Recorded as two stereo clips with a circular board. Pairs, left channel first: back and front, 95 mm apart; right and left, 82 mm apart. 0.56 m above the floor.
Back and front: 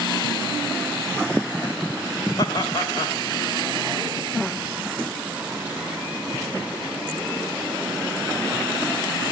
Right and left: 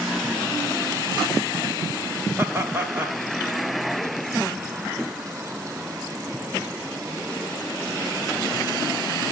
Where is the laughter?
150° left, 2 m.